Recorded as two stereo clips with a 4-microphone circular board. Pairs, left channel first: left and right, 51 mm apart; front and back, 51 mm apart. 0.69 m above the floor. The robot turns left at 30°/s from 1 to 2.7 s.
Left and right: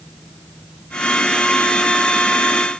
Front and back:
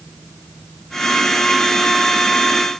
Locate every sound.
Only background noise.